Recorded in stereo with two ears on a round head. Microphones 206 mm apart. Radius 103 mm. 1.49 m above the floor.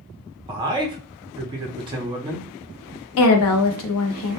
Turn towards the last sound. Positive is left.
turn(degrees=60)  # may be behind; listen again after turning